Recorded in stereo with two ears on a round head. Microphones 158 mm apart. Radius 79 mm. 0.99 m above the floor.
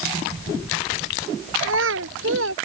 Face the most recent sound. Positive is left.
turn(degrees=-80)